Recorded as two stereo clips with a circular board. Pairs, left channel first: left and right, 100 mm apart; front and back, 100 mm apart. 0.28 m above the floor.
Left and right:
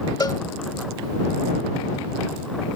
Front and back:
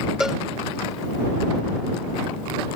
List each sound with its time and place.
0.2 s a cowbell: 100° left